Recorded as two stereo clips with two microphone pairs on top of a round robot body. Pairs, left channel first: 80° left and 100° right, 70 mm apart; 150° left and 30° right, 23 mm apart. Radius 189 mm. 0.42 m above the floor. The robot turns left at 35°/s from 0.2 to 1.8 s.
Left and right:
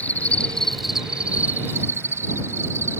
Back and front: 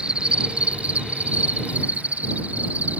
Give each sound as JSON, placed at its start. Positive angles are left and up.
{"t": 0.0, "sound": "an insect", "azimuth_deg": 10}